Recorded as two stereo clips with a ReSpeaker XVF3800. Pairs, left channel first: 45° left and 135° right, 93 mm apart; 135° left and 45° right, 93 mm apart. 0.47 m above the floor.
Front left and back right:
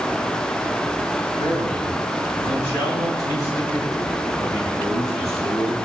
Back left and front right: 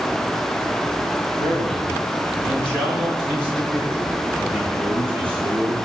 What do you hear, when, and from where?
1.4 s a man speaking: 105° left, 7.5 m; by 5.8 s 95° left, 10.5 m